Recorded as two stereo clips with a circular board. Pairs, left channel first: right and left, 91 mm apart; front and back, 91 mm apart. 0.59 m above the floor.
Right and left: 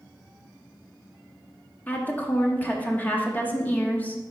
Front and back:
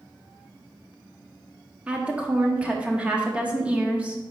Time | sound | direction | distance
1.9 | a woman speaking | 125° right | 0.9 m